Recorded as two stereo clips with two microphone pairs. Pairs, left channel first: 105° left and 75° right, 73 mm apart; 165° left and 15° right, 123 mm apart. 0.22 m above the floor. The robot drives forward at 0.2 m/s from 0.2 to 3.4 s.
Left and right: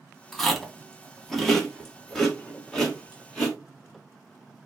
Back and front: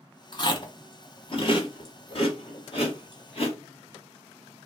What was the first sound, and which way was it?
Chewing, 170° right.